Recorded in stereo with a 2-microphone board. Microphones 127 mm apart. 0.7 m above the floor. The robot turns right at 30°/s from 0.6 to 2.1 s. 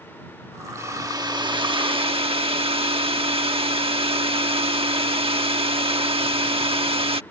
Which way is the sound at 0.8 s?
150° right.